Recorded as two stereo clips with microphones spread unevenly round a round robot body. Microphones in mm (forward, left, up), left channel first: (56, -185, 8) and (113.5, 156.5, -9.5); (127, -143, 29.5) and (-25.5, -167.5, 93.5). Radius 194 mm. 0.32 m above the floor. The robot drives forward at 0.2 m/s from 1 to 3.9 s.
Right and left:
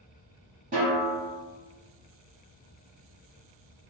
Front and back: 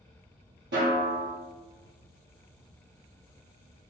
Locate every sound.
0.7 s a snare drum: 150° left, 0.5 m; by 1.3 s 155° left, 0.6 m